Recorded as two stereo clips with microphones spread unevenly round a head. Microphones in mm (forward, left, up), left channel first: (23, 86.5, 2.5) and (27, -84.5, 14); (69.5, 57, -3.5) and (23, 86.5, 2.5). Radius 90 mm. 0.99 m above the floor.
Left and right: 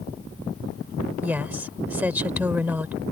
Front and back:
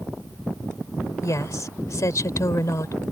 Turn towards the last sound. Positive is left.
turn(degrees=-10)